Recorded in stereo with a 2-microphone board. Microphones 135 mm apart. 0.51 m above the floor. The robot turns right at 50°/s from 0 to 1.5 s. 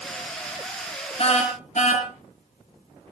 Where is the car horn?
45° left (ahead or behind), 4 m; by 3.1 s 60° left (ahead or behind), 4 m.